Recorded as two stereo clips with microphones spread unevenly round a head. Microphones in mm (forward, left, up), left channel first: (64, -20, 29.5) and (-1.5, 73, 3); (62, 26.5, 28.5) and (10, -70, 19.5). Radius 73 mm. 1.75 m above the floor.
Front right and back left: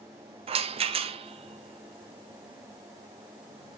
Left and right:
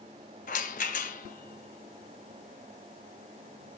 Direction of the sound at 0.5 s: 85° left.